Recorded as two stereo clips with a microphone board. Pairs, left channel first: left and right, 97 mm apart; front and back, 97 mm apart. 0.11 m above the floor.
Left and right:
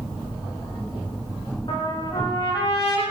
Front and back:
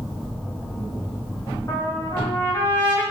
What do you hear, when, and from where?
1.7 s a trumpet: 55° left, 6 m